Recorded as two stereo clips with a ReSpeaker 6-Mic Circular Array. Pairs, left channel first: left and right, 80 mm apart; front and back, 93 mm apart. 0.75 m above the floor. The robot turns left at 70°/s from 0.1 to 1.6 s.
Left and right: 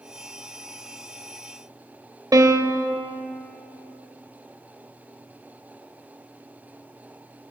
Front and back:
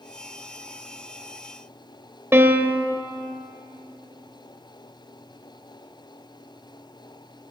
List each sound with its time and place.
2.3 s a piano: 120° right, 0.7 m